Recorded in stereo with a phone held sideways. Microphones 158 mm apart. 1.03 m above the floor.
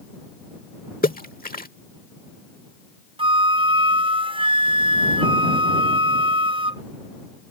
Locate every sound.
1.0 s a splash: 65° left (ahead or behind)
3.2 s a flute: 35° right (ahead or behind)